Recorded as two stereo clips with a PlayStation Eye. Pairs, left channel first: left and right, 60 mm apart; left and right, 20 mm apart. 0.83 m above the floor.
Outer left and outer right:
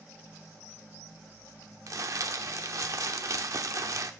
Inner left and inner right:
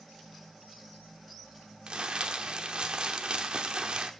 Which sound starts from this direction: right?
Crumpling, at 1.9 s.